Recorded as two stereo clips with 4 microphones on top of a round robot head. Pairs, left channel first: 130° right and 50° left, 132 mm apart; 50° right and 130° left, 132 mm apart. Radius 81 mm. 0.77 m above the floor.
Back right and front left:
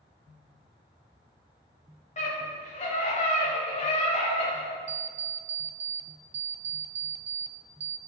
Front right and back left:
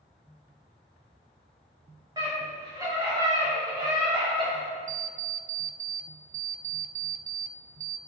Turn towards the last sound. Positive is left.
turn(degrees=95)